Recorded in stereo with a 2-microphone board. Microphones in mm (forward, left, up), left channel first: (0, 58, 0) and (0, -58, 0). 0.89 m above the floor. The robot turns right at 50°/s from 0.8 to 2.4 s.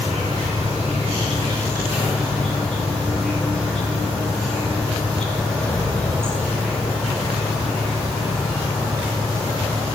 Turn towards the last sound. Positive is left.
turn(degrees=5)